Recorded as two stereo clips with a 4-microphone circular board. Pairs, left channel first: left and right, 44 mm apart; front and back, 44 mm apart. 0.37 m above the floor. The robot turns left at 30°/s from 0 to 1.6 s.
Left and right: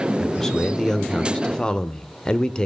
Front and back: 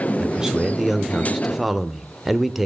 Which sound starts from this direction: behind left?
A man speaking, at 0.2 s.